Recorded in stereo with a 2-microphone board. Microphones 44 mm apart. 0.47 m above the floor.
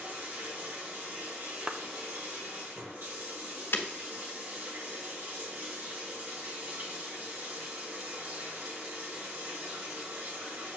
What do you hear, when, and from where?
0.0 s running water: 60° right (ahead or behind), 2.0 m
1.7 s a clap: 15° right (ahead or behind), 0.5 m
3.7 s breaking glass: 65° left (ahead or behind), 1.0 m